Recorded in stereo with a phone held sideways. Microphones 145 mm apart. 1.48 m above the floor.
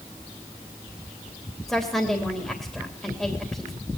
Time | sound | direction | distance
1.7 | a woman speaking | 5° left (ahead or behind) | 3 m